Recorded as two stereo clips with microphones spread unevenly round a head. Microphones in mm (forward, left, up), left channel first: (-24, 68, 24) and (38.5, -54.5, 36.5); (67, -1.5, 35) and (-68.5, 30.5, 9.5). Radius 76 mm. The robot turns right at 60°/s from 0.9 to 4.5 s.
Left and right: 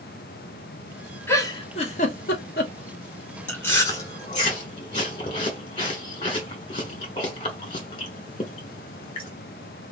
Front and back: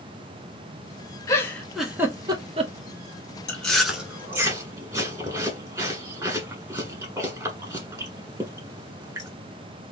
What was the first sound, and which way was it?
A giggle, 40° left.